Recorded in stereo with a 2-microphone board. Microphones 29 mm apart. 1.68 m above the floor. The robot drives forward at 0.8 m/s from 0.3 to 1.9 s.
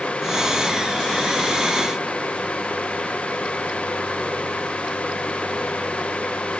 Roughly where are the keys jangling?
No keys jangling in this recording.